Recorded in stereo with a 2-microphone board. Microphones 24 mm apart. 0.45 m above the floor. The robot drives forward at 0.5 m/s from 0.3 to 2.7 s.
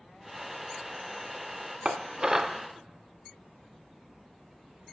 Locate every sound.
1.9 s dishes clattering: 30° right (ahead or behind), 0.5 m; by 2.6 s 20° right (ahead or behind), 0.7 m